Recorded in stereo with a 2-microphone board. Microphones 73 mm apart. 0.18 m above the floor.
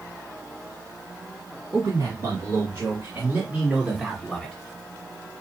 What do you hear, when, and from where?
1.7 s a man speaking: 60° right (ahead or behind), 3 m; by 4.5 s 15° left (ahead or behind), 1.5 m